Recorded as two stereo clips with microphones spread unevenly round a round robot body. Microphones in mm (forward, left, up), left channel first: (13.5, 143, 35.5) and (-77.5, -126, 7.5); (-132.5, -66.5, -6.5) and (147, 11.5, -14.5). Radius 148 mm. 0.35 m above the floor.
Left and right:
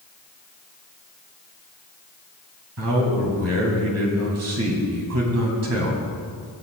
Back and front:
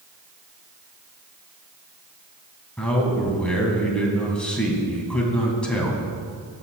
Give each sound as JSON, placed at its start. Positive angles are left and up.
{"t": 2.8, "sound": "a man speaking", "azimuth_deg": -80, "distance_m": 2.5}